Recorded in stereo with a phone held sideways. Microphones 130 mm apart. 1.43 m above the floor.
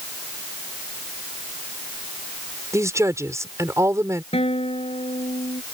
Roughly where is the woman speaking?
Right.